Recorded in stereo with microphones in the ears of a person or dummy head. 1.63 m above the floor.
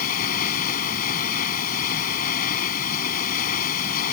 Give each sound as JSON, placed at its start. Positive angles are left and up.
{"t": 0.0, "sound": "running water", "side_deg": 50}